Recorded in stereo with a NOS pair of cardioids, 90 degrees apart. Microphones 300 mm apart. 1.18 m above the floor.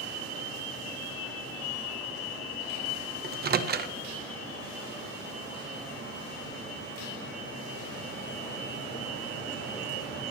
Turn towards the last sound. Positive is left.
turn(degrees=-35)